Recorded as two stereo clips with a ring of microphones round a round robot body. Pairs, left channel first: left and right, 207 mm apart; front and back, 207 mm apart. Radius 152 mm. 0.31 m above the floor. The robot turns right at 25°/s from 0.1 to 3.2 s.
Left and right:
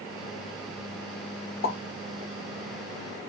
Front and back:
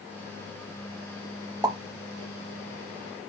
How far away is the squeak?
No squeak in this recording.